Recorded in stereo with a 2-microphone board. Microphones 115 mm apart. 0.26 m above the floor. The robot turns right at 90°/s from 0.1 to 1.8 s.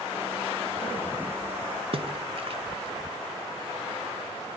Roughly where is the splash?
Right.